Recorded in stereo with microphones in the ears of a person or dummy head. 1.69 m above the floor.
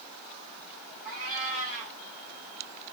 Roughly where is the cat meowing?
Centre.